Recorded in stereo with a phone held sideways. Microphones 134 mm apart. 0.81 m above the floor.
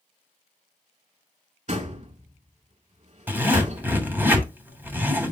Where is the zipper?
15° right (ahead or behind), 2.5 m.